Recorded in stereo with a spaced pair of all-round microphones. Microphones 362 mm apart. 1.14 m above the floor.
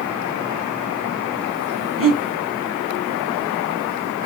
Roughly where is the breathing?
Right.